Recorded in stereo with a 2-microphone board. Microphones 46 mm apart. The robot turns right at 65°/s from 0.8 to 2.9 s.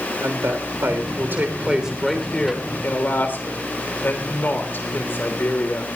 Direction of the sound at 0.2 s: 80° right.